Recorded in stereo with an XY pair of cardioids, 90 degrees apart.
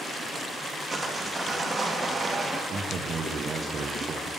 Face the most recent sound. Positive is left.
turn(degrees=-60)